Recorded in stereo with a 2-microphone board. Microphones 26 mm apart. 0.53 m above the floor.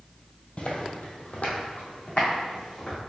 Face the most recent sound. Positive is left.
turn(degrees=40)  # may be behind; listen again after turning